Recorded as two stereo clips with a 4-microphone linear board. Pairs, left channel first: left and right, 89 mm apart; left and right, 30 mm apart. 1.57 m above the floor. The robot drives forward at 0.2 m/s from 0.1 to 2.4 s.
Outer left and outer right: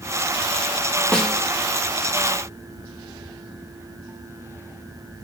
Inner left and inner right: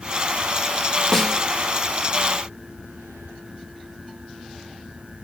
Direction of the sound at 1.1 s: 10° left (ahead or behind).